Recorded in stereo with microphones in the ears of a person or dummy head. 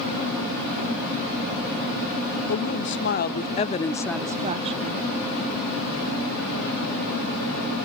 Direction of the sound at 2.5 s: 60° left (ahead or behind).